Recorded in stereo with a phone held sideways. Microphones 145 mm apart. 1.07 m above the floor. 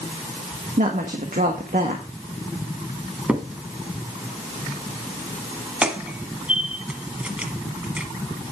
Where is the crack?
10° right (ahead or behind), 1.3 m.